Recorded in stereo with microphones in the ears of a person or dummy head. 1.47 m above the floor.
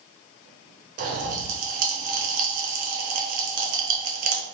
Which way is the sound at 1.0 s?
40° right (ahead or behind).